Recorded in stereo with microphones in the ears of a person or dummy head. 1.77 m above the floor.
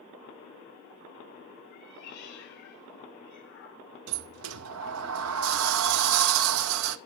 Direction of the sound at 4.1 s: 75° right (ahead or behind).